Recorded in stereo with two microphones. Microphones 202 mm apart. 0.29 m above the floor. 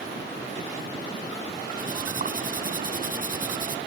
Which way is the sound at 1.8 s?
40° right (ahead or behind).